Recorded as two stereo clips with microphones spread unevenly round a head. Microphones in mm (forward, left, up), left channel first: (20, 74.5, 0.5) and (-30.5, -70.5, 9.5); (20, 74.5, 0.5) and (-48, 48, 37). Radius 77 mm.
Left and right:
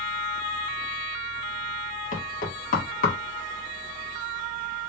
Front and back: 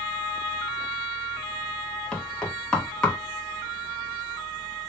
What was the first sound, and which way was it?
Knocking, 110° left.